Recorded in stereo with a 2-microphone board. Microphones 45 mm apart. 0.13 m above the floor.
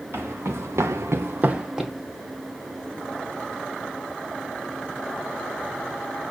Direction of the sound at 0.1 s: 55° right (ahead or behind).